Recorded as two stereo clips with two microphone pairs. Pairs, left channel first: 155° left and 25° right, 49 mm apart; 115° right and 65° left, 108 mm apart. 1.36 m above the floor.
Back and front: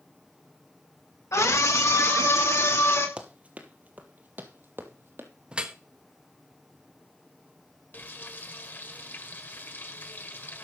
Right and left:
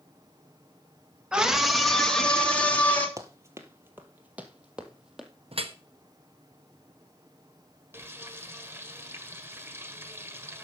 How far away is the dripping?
About 1.0 m.